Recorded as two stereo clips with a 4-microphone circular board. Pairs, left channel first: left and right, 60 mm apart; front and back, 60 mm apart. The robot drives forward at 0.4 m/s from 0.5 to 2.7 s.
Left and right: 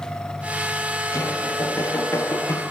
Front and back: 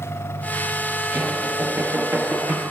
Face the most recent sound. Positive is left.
turn(degrees=125)